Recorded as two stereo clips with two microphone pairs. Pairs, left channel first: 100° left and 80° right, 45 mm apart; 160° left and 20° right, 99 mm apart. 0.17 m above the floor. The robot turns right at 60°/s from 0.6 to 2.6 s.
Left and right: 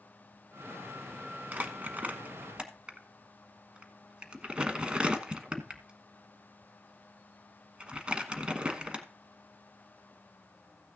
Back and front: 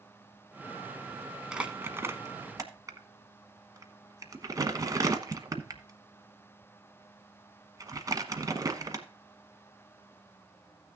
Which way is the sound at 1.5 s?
95° right.